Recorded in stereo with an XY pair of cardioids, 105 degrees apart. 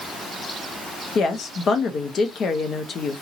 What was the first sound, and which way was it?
A woman speaking, 50° left.